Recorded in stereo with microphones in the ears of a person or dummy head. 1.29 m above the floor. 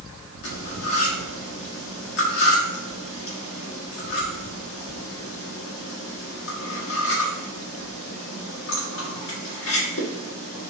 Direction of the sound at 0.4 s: 60° left (ahead or behind).